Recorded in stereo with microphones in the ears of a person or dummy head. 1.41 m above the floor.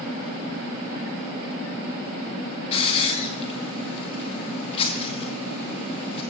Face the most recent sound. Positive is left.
turn(degrees=35)  # may be behind; listen again after turning